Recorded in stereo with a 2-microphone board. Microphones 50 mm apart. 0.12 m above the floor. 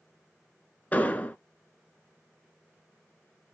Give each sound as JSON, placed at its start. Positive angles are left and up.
{"t": 0.9, "sound": "an explosion", "side_deg": 30, "distance_m": 0.6}